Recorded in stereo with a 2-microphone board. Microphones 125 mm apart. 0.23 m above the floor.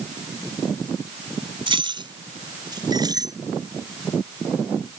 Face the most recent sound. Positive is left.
turn(degrees=-30)  # may be behind; listen again after turning